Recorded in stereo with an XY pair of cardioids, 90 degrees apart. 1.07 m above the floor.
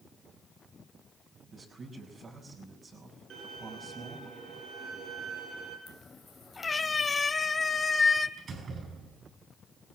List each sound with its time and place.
1.5 s a man speaking: 50° right, 5.5 m
3.3 s a violin: 70° right, 7.5 m
5.9 s a cat meowing: 30° left, 2.5 m
8.4 s a door slam: 55° right, 9 m